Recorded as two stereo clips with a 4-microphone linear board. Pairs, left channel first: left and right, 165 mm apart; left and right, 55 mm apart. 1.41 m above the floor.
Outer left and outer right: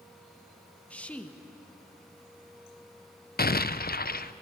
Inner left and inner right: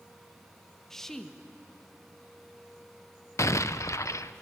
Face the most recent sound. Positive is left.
turn(degrees=70)  # may be behind; listen again after turning